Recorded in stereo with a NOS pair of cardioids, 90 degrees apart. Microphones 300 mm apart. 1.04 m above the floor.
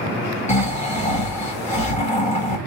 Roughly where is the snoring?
Ahead.